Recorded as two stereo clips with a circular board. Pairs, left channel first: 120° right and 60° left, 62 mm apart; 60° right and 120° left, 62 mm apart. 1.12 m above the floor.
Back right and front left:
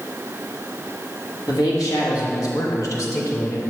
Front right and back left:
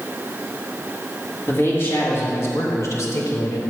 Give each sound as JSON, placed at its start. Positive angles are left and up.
{"t": 1.5, "sound": "a man speaking", "azimuth_deg": -110, "distance_m": 1.8}